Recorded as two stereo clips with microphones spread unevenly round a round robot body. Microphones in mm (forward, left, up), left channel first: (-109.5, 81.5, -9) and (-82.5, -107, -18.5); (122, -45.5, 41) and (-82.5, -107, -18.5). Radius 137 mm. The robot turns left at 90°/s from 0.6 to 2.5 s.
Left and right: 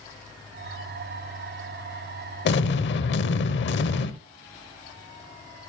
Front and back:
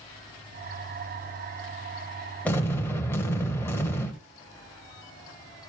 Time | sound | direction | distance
2.5 | an explosion | 110° left | 0.9 m